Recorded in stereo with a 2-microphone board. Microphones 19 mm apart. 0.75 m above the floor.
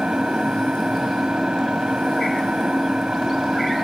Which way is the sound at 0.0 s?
65° right (ahead or behind).